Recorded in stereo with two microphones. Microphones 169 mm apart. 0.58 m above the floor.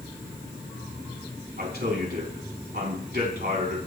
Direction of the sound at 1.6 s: 75° right (ahead or behind).